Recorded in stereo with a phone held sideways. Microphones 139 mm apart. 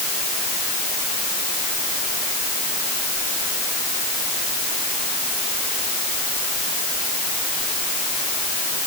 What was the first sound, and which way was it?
Only background noise.